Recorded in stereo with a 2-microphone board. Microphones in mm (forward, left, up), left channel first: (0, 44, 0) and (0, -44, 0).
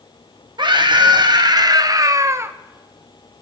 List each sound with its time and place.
0.6 s a scream: 60° right (ahead or behind), 1.7 m; by 2.5 s 30° right (ahead or behind), 0.8 m